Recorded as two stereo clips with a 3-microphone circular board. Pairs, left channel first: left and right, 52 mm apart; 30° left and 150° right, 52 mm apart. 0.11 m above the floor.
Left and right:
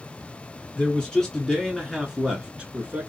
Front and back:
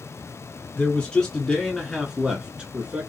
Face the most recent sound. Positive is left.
turn(degrees=-120)